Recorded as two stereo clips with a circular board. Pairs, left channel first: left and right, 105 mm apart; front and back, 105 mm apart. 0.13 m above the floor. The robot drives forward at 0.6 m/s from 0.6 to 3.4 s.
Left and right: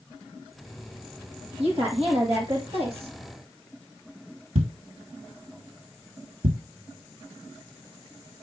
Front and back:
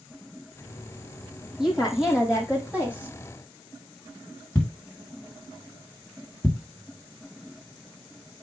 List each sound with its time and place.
1.6 s a woman speaking: 95° right, 5 m; by 3.2 s 105° right, 5 m
4.5 s a thud: 75° right, 1.3 m